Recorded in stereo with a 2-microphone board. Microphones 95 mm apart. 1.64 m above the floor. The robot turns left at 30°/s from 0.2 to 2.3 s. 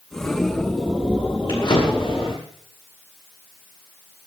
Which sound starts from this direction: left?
A drawer, at 1.5 s.